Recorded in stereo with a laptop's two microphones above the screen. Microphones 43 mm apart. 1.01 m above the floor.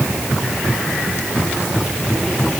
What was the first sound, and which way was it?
Only background noise.